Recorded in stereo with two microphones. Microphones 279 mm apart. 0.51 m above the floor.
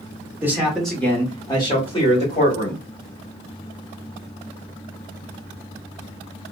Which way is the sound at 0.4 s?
10° right (ahead or behind).